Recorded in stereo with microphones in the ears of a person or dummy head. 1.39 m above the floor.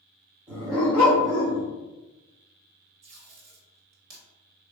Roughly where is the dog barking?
Centre.